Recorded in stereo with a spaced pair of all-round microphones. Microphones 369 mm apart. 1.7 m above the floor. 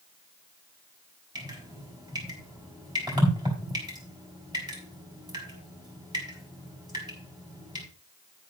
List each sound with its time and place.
1.4 s dripping: 10° right (ahead or behind), 4 m